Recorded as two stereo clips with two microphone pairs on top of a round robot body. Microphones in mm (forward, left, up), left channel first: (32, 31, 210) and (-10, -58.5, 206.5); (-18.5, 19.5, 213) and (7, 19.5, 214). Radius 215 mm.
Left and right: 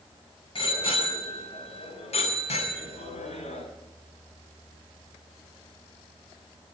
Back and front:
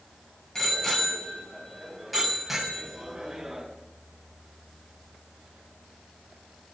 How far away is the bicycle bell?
About 6 m.